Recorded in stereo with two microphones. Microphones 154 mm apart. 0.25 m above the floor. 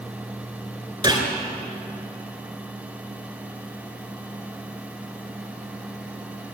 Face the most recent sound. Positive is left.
turn(degrees=-30)  # may be behind; listen again after turning